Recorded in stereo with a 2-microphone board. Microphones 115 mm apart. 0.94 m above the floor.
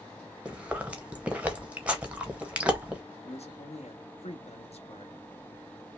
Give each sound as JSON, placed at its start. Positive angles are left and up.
{"t": 0.5, "sound": "chewing", "side_deg": -10, "distance_m": 0.9}
{"t": 3.2, "sound": "a man speaking", "side_deg": 70, "distance_m": 1.0}